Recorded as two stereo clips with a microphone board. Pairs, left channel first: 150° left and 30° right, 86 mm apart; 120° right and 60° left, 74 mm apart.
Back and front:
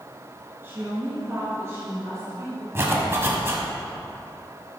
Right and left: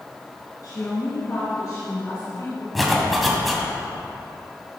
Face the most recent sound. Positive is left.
turn(degrees=-30)